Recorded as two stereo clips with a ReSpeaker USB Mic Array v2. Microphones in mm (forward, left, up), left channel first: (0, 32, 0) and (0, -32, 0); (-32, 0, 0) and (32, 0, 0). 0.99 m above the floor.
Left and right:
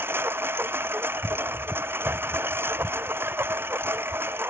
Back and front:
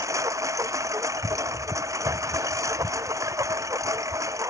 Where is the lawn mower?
35° right.